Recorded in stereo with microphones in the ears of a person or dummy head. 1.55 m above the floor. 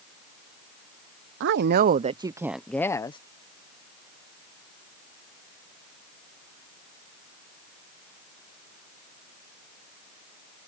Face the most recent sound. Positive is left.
turn(degrees=25)  # may be behind; listen again after turning